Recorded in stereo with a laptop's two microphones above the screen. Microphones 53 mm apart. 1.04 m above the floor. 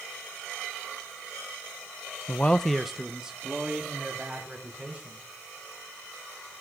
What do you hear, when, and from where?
2.3 s a man speaking: 35° left (ahead or behind), 0.5 m; by 5.2 s 20° right (ahead or behind), 4 m